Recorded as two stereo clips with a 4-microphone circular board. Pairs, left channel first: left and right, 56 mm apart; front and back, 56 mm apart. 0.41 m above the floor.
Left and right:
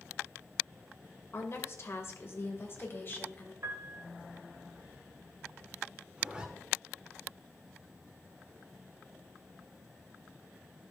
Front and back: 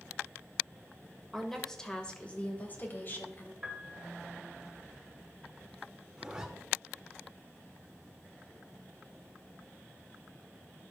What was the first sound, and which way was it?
A woman speaking, 90° left.